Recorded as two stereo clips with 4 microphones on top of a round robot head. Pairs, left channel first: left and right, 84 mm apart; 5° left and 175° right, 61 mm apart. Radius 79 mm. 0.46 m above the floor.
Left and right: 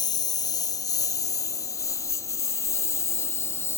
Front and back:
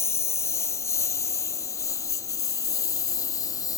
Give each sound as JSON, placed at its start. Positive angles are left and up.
{"t": 0.0, "sound": "a lawn mower", "azimuth_deg": 50}